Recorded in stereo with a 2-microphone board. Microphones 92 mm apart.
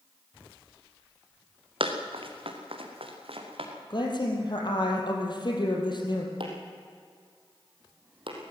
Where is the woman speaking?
50° left (ahead or behind), 4 m.